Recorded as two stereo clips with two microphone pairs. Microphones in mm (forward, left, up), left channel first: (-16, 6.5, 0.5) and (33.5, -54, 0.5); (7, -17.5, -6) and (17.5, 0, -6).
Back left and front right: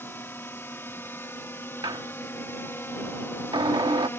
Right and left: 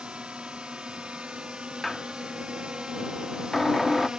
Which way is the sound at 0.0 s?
70° left.